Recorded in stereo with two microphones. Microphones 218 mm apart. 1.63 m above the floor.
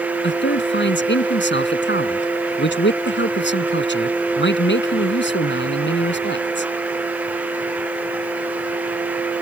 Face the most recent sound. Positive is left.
turn(degrees=60)  # may be behind; listen again after turning